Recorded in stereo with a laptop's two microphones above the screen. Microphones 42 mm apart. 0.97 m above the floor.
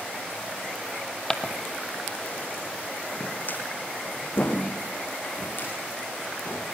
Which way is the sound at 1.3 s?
10° left (ahead or behind).